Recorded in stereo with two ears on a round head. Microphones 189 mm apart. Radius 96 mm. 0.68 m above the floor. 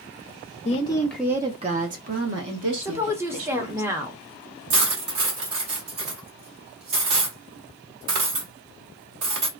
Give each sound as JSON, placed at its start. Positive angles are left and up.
{"t": 0.7, "sound": "a woman speaking", "side_deg": 30, "distance_m": 0.5}
{"t": 2.8, "sound": "a woman speaking", "side_deg": -10, "distance_m": 0.6}
{"t": 4.7, "sound": "cutlery clinking", "side_deg": -65, "distance_m": 1.2}